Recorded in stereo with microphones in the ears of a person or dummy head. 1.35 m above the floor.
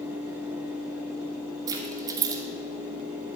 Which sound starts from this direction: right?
Keys jangling, at 1.7 s.